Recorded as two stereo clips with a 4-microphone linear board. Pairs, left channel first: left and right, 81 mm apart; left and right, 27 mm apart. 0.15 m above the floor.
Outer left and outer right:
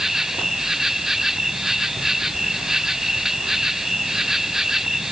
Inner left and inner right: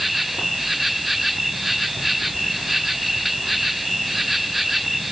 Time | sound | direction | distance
0.0 | an insect | 5° right (ahead or behind) | ?